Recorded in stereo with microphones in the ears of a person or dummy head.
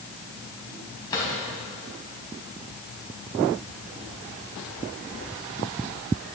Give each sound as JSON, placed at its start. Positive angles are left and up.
{"t": 1.1, "sound": "a drawer", "side_deg": 20, "distance_m": 4.0}